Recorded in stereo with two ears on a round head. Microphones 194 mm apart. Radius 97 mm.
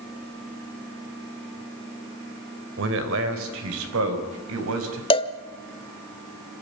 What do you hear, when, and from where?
2.8 s a man speaking: 65° right (ahead or behind), 3 m; by 5.0 s 75° right (ahead or behind), 4.5 m
5.1 s a cowbell: 25° left (ahead or behind), 1.0 m